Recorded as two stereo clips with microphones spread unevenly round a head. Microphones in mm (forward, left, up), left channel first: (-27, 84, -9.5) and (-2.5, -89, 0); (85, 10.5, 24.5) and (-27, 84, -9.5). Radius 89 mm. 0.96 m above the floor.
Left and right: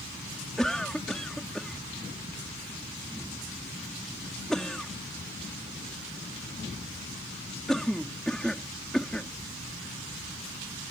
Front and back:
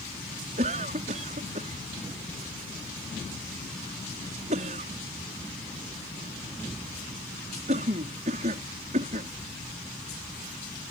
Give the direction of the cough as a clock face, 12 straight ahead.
6 o'clock.